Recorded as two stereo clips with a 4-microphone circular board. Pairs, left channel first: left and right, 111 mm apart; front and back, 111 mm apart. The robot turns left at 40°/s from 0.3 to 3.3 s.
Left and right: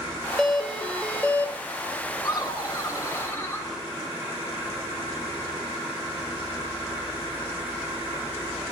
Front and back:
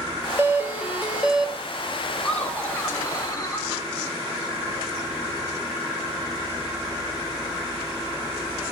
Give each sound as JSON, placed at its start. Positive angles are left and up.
{"t": 0.4, "sound": "a doorbell", "azimuth_deg": 165, "distance_m": 1.9}
{"t": 2.2, "sound": "laughter", "azimuth_deg": 80, "distance_m": 1.2}